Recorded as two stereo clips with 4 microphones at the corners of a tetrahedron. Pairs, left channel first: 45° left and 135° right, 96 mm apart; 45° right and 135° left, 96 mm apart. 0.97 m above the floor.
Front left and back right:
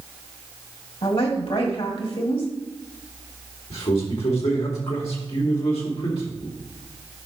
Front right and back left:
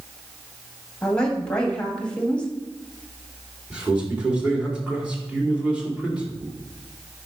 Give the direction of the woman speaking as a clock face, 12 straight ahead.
11 o'clock.